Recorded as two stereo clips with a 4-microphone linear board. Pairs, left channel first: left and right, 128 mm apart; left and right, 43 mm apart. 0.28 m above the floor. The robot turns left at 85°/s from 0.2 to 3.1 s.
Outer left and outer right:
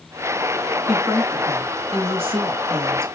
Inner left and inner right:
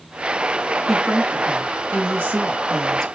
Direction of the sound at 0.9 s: 5° right.